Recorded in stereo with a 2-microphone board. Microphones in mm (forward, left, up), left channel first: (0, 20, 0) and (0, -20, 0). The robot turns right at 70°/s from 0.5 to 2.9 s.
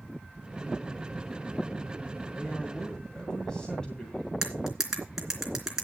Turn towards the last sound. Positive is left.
turn(degrees=-10)  # may be behind; listen again after turning